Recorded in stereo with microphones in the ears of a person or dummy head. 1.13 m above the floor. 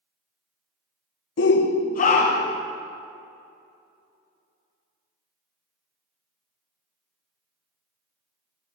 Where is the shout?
60° left (ahead or behind), 0.5 m; by 2.6 s 30° left (ahead or behind), 1.0 m.